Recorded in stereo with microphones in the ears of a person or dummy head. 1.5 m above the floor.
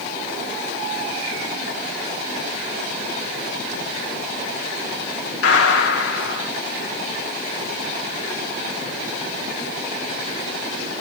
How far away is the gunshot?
About 2 m.